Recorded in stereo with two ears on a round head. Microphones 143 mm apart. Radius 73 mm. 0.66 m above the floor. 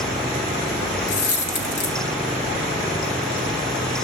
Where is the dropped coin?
65° left (ahead or behind), 2 m.